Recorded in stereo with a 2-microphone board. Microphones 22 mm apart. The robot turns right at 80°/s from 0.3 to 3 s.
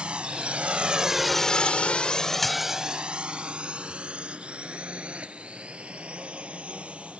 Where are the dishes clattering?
165° left; by 2.8 s 160° right.